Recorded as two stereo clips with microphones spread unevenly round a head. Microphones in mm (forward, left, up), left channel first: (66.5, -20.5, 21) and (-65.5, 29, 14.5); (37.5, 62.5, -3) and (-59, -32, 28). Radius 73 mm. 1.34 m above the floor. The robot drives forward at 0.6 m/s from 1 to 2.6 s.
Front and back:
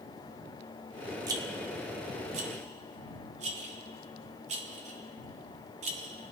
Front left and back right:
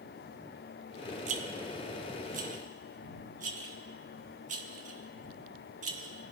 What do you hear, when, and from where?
1.3 s a rattle: 135° right, 1.1 m; by 6.3 s 155° right, 1.7 m